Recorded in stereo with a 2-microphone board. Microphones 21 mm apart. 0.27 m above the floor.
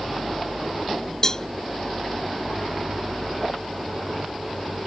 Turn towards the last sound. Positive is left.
turn(degrees=30)  # may be behind; listen again after turning